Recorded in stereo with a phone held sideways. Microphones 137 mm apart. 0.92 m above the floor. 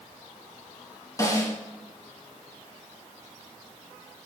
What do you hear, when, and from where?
1.2 s a snare drum: 25° left (ahead or behind), 4 m